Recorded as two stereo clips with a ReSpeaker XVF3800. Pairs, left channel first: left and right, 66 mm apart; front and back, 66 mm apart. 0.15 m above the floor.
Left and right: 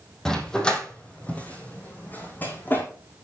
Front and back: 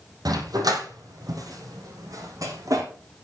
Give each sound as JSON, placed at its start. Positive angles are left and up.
{"t": 0.2, "sound": "a dog barking", "azimuth_deg": 170, "distance_m": 3.0}